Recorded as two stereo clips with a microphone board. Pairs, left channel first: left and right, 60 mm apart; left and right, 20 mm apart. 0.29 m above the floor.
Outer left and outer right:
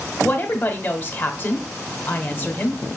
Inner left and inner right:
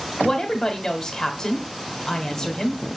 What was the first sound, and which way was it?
A woman speaking, 30° left (ahead or behind).